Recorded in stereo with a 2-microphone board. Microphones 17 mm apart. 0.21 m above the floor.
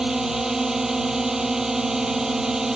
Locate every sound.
0.0 s a drone: 30° right (ahead or behind)